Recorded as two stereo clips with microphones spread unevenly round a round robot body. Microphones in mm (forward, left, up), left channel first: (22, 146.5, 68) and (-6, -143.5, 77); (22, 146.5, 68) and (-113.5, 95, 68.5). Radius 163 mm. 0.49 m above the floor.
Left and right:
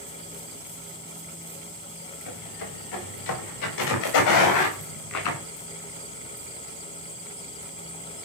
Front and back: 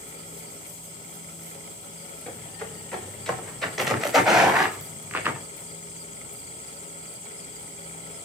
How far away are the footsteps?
About 7.5 m.